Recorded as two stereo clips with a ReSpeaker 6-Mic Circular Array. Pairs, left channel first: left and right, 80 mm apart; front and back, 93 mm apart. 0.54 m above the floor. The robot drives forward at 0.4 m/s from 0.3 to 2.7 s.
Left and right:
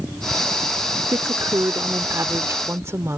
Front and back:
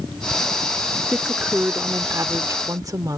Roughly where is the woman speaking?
Right.